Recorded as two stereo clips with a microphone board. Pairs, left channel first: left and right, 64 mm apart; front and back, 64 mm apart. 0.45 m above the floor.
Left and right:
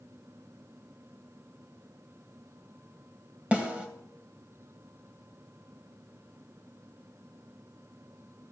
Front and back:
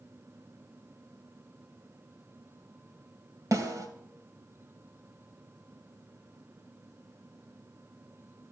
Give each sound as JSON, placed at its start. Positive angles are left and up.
{"t": 3.5, "sound": "a snare drum", "azimuth_deg": -160, "distance_m": 2.5}